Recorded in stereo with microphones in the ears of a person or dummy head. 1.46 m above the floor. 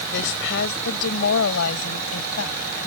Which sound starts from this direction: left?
A woman speaking, at 0.1 s.